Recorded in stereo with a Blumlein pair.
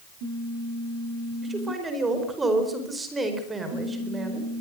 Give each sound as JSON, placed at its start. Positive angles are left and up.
{"t": 1.4, "sound": "a man speaking", "azimuth_deg": -15, "distance_m": 4.5}